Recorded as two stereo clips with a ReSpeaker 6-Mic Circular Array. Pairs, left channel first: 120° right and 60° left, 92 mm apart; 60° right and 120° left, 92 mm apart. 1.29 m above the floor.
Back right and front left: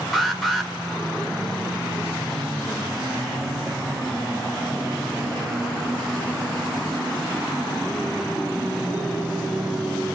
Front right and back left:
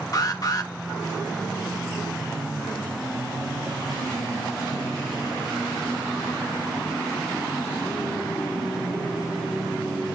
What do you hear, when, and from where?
0.1 s an alarm: 30° right, 1.8 m